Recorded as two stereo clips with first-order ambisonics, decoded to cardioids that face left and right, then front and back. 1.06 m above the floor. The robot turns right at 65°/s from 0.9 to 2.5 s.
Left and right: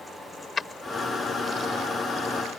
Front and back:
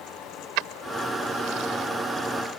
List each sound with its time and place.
0.6 s keys jangling: 165° left; by 2.6 s 95° right